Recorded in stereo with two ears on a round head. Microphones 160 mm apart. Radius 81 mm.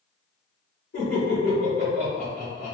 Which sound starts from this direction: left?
Laughter, at 0.9 s.